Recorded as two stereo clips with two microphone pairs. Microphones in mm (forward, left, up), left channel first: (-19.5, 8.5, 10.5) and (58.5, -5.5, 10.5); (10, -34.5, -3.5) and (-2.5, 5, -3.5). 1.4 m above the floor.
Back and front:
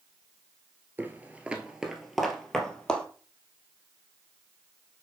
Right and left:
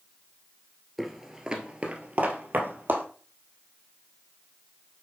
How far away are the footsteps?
About 1.5 m.